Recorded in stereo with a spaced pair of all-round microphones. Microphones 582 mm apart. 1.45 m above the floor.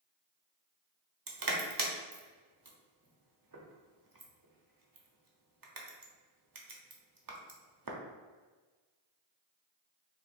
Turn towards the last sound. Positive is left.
turn(degrees=-35)  # may be behind; listen again after turning